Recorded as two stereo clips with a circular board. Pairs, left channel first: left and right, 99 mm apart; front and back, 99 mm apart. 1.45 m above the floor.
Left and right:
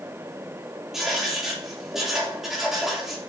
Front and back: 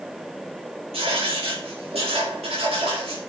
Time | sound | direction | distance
0.9 | writing | 175° right | 3.5 m